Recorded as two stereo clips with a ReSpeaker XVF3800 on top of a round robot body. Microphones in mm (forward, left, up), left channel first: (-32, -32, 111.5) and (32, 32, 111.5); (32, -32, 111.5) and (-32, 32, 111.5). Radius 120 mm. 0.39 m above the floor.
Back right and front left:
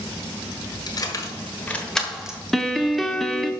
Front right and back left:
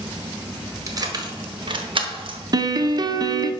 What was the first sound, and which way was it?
Keys jangling, 175° right.